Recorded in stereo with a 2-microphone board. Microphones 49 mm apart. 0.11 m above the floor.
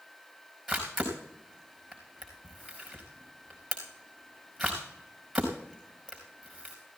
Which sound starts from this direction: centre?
A camera shutter, at 0.7 s.